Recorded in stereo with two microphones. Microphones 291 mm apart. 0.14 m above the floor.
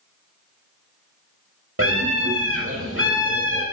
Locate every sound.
1.8 s a scream: 50° right (ahead or behind), 4.5 m